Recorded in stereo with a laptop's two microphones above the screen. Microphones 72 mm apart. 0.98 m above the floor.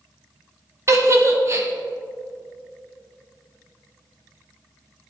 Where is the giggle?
40° right (ahead or behind), 1.1 m.